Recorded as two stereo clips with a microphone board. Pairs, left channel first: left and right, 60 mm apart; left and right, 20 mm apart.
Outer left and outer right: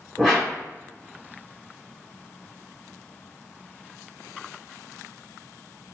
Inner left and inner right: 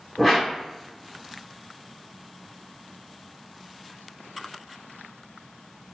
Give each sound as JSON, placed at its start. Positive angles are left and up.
{"t": 0.2, "sound": "a whoosh", "side_deg": 0, "distance_m": 1.7}